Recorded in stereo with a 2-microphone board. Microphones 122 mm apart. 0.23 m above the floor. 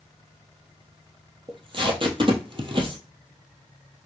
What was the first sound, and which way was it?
Tape being pulled, 45° right (ahead or behind).